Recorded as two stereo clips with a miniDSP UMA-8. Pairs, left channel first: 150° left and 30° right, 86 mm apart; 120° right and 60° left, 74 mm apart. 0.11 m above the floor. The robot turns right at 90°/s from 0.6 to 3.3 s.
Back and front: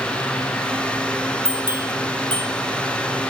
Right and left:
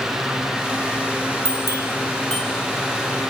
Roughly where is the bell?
Behind right.